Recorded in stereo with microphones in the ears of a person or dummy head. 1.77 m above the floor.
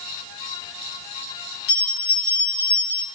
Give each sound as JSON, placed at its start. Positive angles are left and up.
{"t": 1.7, "sound": "a bell", "side_deg": 65, "distance_m": 1.4}